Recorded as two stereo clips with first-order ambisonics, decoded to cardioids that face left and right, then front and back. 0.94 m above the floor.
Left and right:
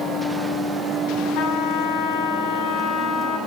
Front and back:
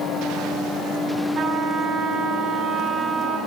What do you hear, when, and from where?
1.4 s a trumpet: 120° left, 9.5 m